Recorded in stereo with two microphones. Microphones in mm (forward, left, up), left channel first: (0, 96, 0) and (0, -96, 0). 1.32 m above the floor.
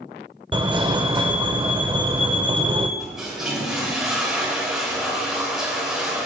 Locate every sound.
0.5 s a fire alarm: 25° right (ahead or behind), 0.9 m
3.0 s a toilet flushing: 5° right (ahead or behind), 3.5 m